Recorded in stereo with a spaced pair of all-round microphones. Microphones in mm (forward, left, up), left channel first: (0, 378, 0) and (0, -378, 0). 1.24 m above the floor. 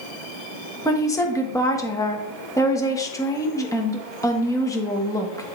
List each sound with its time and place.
0.8 s a woman speaking: 5° left (ahead or behind), 1.1 m